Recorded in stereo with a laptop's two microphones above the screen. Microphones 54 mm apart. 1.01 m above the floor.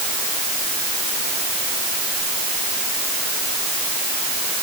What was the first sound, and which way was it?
Only background noise.